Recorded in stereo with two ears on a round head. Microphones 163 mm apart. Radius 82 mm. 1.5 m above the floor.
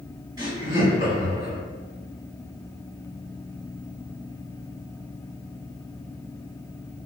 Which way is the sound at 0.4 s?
25° right (ahead or behind).